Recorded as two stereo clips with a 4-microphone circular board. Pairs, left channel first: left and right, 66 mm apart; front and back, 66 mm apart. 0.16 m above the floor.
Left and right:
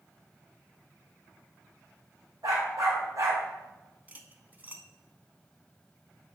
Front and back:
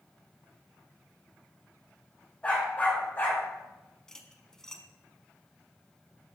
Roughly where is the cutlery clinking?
Right.